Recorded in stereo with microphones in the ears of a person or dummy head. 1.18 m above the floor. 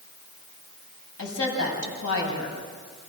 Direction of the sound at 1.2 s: 65° left (ahead or behind).